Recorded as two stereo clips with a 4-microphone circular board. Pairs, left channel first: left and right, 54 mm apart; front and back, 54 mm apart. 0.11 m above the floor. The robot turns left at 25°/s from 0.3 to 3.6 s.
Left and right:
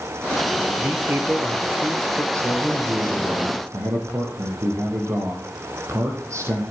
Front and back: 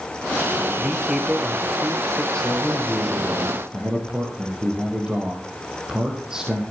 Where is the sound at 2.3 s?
75° right, 4.5 m; by 6.6 s 105° right, 4.5 m.